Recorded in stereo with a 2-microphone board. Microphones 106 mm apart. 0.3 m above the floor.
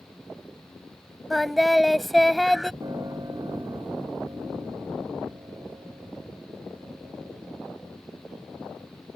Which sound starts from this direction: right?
A piano, at 2.8 s.